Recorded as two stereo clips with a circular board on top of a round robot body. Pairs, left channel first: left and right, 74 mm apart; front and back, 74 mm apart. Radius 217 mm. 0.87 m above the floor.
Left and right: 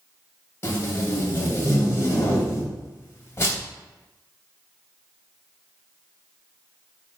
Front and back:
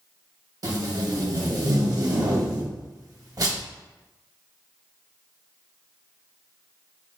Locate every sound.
0.6 s tape being pulled: 145° left, 1.2 m